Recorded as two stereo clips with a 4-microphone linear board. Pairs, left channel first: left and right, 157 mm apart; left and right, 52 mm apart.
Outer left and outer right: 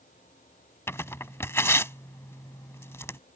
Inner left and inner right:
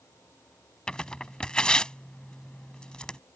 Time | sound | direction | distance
0.9 | tearing paper | 15° left (ahead or behind) | ?